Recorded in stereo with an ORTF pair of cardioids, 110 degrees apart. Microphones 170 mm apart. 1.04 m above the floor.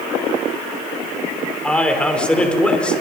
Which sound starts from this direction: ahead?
A man speaking, at 1.6 s.